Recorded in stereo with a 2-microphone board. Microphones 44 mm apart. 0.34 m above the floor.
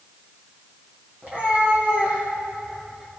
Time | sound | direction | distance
1.2 | a cat meowing | 45° right (ahead or behind) | 3.5 m